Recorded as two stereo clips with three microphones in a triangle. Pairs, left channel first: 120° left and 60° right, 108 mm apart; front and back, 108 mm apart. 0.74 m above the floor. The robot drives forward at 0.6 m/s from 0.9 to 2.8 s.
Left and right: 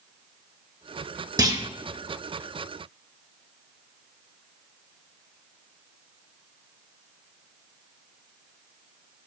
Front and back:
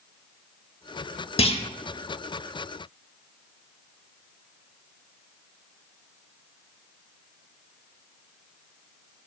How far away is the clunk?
About 0.8 m.